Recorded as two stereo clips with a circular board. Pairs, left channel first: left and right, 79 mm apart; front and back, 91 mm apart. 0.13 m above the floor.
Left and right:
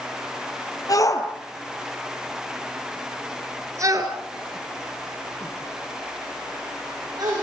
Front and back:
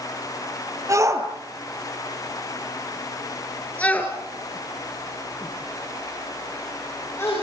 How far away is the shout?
About 3.5 m.